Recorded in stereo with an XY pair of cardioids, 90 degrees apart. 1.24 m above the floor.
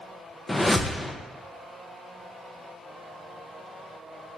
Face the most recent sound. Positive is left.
turn(degrees=15)